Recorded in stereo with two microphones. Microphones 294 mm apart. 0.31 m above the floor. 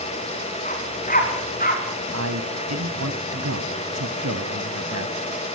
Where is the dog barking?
25° left (ahead or behind), 6 m; by 1.8 s 30° left (ahead or behind), 7 m.